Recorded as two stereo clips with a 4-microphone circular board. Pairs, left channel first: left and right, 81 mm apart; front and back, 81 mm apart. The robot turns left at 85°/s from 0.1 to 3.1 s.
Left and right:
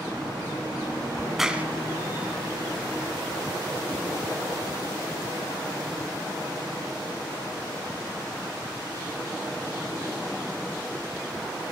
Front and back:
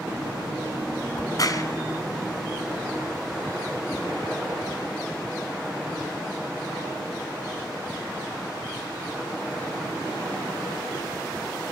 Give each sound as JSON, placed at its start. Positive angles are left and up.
{"t": 1.1, "sound": "a crack", "azimuth_deg": 15, "distance_m": 2.0}